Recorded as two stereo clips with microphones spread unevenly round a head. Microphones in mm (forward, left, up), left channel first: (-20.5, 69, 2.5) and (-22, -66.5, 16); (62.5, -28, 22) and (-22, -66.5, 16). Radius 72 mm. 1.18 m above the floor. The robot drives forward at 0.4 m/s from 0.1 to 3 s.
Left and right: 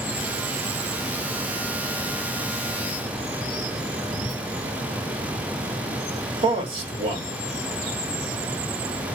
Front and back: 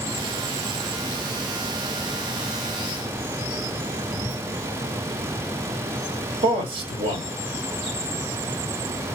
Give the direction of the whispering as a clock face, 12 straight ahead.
9 o'clock.